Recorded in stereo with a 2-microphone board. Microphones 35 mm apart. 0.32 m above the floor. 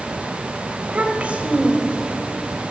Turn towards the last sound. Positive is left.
turn(degrees=-20)  # may be behind; listen again after turning